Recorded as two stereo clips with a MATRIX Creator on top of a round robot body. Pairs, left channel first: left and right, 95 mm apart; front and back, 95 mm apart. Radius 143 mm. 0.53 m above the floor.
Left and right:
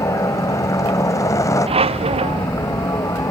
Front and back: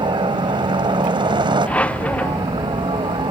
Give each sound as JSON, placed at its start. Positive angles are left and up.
{"t": 0.0, "sound": "a helicopter", "azimuth_deg": 145}
{"t": 1.7, "sound": "a squeak", "azimuth_deg": -80}